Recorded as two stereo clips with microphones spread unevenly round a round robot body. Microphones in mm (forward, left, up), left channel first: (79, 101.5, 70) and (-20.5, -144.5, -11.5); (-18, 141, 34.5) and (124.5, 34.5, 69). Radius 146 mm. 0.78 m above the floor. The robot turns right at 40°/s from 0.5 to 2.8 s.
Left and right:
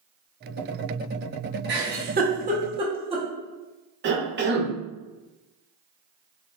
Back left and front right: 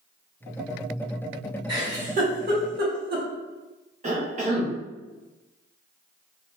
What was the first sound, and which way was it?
A giggle, 110° right.